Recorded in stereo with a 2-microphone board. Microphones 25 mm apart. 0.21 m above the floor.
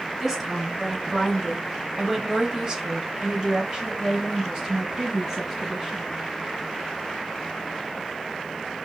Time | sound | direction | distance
0.2 | a woman speaking | 15° right (ahead or behind) | 2 m